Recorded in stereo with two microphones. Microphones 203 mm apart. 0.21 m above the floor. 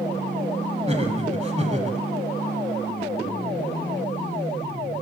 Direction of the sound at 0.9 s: 30° right (ahead or behind).